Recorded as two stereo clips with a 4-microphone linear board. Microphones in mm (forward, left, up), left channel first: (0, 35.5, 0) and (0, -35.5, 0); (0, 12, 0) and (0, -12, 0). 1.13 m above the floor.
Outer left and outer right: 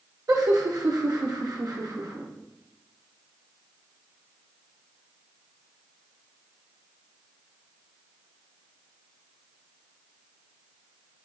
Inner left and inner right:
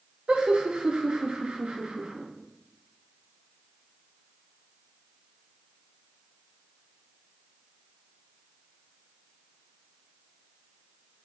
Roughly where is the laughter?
Right.